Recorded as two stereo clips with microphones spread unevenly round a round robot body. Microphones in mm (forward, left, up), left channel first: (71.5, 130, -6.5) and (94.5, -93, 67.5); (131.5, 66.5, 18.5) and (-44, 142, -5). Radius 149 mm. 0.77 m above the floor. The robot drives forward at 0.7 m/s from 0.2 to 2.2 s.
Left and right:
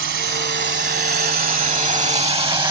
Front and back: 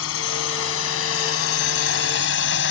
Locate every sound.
0.0 s a drone: 50° right; by 2.7 s 10° right